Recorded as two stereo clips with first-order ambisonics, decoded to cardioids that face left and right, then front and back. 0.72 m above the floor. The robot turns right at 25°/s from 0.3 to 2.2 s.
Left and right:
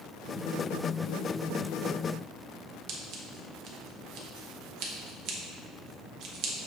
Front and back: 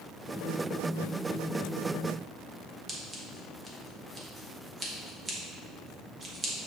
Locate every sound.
2.9 s scissors: 110° right, 0.7 m